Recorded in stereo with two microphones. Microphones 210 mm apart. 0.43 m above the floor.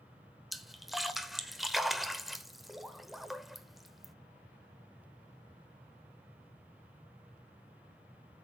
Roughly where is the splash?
Centre.